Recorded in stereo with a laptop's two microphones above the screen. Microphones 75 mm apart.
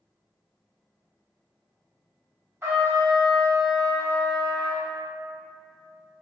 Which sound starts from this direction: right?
A trumpet, at 2.6 s.